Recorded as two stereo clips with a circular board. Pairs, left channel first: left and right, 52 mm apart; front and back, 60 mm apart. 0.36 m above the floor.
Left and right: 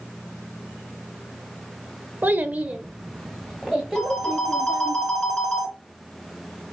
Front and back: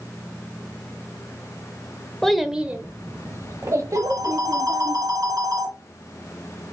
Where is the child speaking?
80° right, 0.9 m; by 5.0 s 170° left, 2.5 m.